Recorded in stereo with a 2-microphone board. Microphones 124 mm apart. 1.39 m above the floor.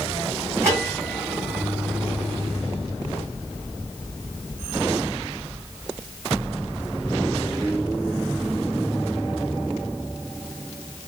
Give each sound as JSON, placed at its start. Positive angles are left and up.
{"t": 0.6, "sound": "a bell", "side_deg": -20, "distance_m": 2.0}